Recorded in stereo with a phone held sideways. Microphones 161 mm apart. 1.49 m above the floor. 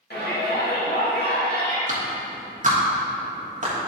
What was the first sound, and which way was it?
A shout, 80° left.